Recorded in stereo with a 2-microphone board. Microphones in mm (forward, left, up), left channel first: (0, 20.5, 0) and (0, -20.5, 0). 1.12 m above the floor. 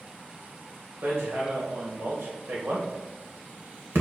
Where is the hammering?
75° right (ahead or behind), 2.5 m.